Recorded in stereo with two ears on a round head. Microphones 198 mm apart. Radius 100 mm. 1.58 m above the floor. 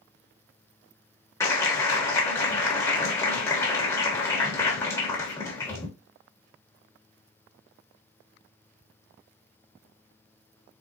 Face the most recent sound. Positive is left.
turn(degrees=15)  # may be behind; listen again after turning